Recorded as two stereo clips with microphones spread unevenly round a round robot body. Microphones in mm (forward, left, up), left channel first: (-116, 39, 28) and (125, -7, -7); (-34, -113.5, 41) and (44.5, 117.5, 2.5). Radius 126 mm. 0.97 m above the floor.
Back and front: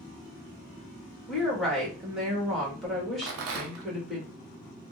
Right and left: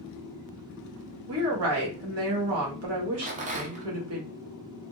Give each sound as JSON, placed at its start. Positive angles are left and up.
{"t": 1.3, "sound": "a woman speaking", "azimuth_deg": 75, "distance_m": 1.4}
{"t": 3.2, "sound": "a rattle", "azimuth_deg": 10, "distance_m": 0.6}